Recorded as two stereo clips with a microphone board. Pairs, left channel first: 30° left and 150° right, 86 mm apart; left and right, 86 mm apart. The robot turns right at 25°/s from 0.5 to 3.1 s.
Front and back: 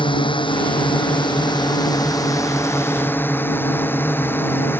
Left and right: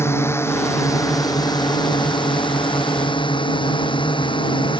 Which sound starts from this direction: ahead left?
A drone, at 0.0 s.